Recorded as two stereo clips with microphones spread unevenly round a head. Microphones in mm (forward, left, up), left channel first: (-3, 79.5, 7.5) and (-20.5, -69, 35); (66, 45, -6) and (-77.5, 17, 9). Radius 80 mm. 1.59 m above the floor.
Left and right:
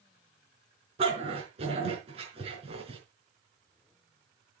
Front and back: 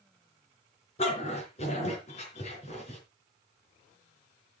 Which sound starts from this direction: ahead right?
A dog barking, at 1.0 s.